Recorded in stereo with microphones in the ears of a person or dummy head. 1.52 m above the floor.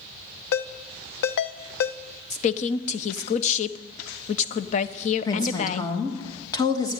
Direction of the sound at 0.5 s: 60° left (ahead or behind).